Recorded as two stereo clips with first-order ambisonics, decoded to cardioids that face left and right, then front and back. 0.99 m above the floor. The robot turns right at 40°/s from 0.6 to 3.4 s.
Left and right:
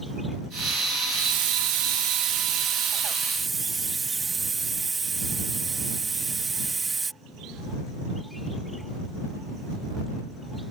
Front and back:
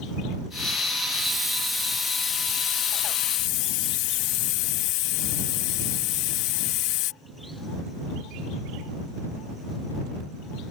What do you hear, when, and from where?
1.1 s a hiss: 105° right; by 7.1 s 15° right